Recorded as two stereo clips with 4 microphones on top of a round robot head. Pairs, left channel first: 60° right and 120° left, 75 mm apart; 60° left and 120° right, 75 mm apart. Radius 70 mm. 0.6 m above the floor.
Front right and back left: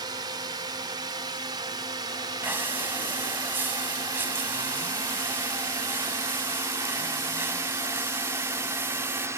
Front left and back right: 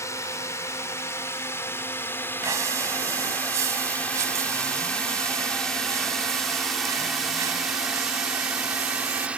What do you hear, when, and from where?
0.0 s a drone: 105° left; by 9.4 s 165° left
2.4 s breathing: 175° right